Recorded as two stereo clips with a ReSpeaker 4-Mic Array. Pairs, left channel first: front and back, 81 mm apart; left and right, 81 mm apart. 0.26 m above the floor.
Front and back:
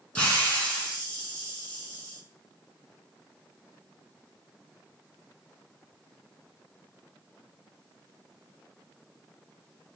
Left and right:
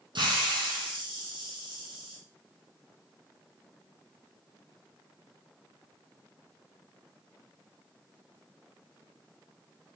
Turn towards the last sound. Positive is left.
turn(degrees=-70)